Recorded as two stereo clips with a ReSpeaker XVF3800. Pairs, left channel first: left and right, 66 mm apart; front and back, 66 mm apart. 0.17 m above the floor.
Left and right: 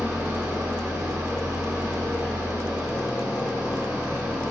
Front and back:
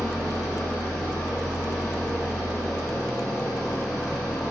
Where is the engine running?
85° right, 1.9 m.